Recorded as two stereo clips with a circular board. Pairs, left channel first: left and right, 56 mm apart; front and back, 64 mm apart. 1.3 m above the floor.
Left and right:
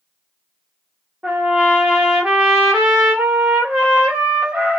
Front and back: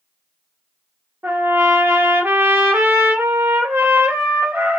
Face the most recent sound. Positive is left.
turn(degrees=-155)